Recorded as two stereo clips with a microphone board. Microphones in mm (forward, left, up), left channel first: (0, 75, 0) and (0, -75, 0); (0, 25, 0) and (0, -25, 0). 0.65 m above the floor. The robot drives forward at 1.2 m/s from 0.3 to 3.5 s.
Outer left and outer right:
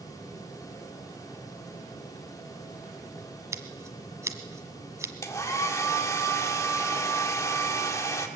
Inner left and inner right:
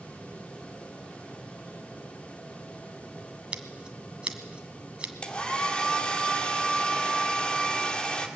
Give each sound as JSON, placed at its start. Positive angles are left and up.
{"t": 3.5, "sound": "scissors", "side_deg": -20, "distance_m": 1.7}
{"t": 5.2, "sound": "a hair dryer", "side_deg": 20, "distance_m": 1.9}